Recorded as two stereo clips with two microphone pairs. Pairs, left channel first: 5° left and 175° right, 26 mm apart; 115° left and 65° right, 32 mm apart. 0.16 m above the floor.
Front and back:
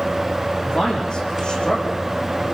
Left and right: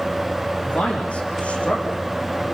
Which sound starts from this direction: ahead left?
A man speaking, at 0.6 s.